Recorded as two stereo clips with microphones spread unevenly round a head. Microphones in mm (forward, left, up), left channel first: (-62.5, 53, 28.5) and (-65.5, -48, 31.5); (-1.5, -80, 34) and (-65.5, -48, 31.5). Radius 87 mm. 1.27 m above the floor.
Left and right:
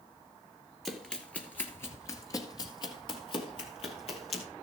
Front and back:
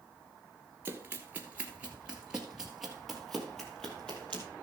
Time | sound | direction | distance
0.8 | running footsteps | 175° left | 1.3 m